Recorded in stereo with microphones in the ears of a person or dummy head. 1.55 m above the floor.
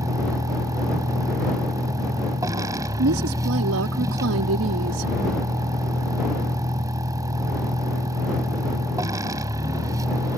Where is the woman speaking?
85° right.